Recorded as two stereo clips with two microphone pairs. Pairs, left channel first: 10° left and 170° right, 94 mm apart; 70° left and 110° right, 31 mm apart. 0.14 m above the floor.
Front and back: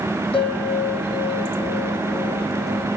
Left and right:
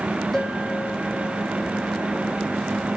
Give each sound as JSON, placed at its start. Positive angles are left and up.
{"t": 0.3, "sound": "a bell", "azimuth_deg": -5, "distance_m": 5.5}